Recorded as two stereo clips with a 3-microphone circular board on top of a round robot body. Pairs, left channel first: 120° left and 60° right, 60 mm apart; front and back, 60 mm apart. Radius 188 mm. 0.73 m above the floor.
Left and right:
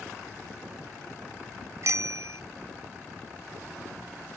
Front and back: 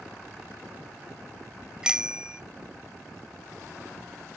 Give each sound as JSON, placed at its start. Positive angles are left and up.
{"t": 1.8, "sound": "a bicycle bell", "azimuth_deg": -100}